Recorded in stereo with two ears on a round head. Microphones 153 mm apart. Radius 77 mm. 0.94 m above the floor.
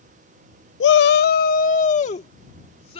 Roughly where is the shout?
Left.